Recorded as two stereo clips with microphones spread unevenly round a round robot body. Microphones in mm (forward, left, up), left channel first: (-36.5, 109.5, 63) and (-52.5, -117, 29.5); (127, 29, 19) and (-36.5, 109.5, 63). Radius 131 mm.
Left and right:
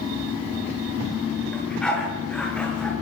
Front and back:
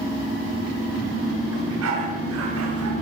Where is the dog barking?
170° left, 6.5 m.